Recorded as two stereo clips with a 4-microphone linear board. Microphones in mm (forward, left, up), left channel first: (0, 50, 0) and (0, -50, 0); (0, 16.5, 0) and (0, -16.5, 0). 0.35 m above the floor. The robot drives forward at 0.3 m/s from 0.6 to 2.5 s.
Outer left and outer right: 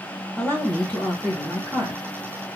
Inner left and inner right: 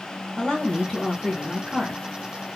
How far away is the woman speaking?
About 1.9 m.